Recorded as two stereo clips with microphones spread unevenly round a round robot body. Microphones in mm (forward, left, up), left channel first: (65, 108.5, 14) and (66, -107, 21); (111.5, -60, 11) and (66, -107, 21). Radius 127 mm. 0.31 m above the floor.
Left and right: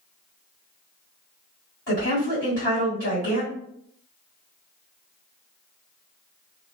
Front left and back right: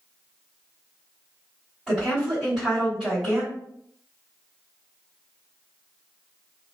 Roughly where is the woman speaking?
Behind left.